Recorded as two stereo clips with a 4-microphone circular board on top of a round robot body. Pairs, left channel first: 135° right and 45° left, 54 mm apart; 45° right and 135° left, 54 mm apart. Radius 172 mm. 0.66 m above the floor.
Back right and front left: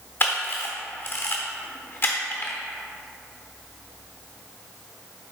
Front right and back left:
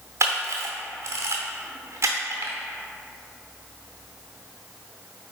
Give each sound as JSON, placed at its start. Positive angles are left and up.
{"t": 0.2, "sound": "a camera shutter", "azimuth_deg": 175, "distance_m": 0.7}